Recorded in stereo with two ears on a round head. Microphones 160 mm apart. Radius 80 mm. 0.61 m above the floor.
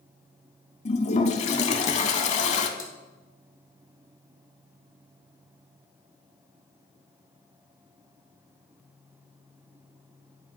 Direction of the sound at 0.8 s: 40° left (ahead or behind).